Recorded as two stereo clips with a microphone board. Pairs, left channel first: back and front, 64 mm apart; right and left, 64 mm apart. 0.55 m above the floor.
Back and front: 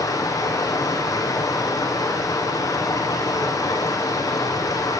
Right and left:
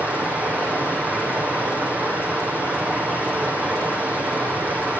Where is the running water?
155° left, 6 m.